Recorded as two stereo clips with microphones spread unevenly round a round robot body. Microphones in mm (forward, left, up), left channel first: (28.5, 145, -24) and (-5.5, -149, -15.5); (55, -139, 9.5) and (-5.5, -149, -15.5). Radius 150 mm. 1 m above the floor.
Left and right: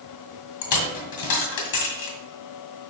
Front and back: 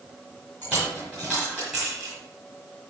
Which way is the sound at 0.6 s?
100° left.